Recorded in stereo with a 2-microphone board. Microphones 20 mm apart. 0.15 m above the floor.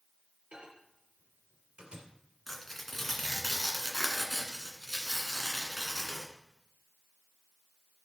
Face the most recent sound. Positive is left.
turn(degrees=5)  # may be behind; listen again after turning